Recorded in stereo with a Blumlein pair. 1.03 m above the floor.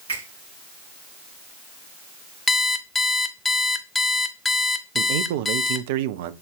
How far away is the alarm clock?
About 0.6 m.